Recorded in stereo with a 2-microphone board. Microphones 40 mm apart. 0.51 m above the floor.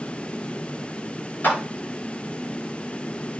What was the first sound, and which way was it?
A clap, 45° left (ahead or behind).